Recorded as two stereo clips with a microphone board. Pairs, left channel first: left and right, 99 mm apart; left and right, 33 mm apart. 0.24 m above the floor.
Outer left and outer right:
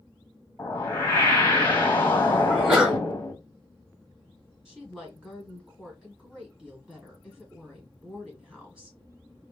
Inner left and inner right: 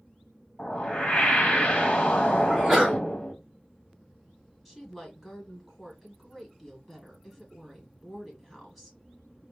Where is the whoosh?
20° left (ahead or behind), 1.3 m.